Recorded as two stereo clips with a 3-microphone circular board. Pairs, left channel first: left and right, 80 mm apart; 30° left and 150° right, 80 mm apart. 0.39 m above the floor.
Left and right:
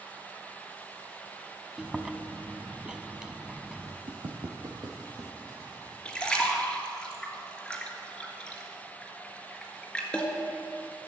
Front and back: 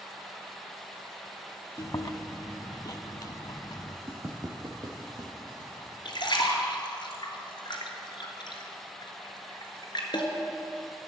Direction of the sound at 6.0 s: 10° left.